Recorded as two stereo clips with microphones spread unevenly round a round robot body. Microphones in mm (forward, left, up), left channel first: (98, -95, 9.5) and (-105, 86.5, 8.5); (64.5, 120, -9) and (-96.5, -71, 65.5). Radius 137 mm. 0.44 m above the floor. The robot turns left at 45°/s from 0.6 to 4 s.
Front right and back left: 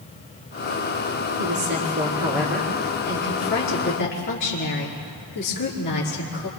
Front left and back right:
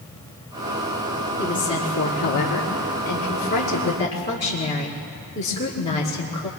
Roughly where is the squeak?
No squeak in this recording.